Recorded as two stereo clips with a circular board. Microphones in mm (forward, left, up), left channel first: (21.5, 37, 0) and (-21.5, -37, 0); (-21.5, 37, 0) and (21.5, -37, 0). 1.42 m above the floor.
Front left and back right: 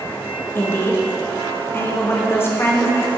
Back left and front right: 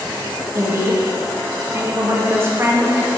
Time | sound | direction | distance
0.6 | a woman speaking | straight ahead | 0.8 m